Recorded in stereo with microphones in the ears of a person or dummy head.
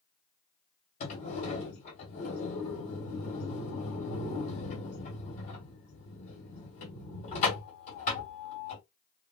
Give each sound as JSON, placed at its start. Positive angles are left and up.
{"t": 1.0, "sound": "a sliding door", "side_deg": 45, "distance_m": 1.7}